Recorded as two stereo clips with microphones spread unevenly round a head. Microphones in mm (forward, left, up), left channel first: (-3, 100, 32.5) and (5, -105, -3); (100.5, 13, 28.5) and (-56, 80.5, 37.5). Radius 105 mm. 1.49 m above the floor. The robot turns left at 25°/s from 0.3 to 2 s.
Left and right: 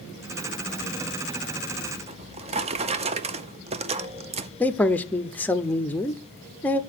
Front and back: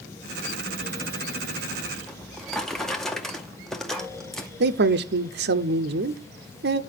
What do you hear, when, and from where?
2.1 s a drawer: 115° right, 0.5 m
4.6 s a man speaking: straight behind, 0.7 m